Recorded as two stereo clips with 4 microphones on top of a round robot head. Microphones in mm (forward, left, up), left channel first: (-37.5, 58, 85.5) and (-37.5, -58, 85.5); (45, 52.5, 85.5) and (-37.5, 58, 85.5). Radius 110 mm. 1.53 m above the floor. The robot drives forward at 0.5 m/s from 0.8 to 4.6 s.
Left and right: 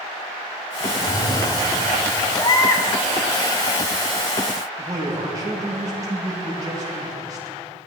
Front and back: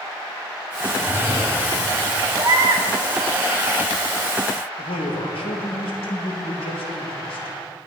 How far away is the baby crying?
About 0.9 m.